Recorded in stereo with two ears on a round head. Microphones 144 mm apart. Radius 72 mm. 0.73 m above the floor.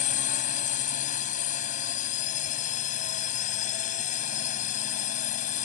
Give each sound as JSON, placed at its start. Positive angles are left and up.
{"t": 0.0, "sound": "a drone", "side_deg": 50}